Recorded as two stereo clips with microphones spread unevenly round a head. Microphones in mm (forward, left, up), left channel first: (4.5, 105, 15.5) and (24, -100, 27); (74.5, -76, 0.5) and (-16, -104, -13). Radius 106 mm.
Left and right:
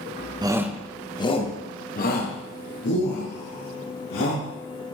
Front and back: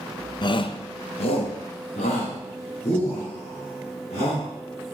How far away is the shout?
About 0.7 m.